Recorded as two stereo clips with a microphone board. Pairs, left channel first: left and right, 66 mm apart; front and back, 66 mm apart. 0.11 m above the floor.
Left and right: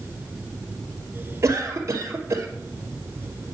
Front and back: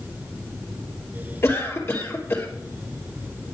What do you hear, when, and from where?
1.4 s a cough: 50° right, 2.5 m